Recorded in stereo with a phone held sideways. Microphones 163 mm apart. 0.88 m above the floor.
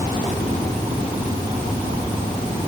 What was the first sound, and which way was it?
Only background noise.